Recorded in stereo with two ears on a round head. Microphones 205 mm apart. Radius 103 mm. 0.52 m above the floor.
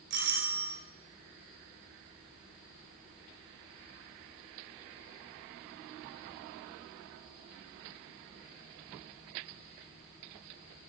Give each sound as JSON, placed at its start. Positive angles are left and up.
{"t": 0.1, "sound": "a doorbell", "side_deg": -50, "distance_m": 2.5}